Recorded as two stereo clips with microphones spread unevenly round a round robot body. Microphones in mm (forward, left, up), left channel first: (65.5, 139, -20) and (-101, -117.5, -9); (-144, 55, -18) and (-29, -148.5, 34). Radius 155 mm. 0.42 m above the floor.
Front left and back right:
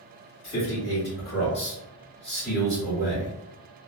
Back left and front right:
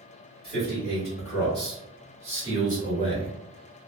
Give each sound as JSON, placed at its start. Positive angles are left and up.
{"t": 0.4, "sound": "a man speaking", "azimuth_deg": 40, "distance_m": 1.5}